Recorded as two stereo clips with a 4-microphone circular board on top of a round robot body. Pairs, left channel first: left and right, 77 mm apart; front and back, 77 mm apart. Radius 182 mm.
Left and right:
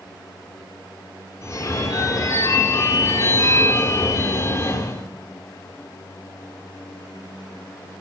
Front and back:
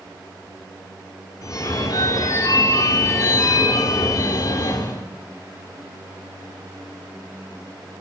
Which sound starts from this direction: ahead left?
A phone ringing, at 1.4 s.